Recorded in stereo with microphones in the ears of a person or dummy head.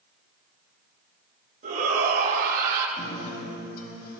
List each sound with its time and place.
1.6 s a shout: 40° right (ahead or behind), 4 m; by 2.9 s 50° right (ahead or behind), 4.5 m
3.0 s a guitar: 50° left (ahead or behind), 4.5 m